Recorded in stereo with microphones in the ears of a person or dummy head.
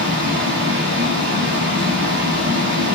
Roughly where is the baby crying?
No baby crying in this recording.